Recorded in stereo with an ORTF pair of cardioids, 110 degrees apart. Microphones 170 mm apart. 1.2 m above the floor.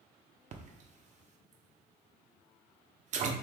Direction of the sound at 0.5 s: 45° right.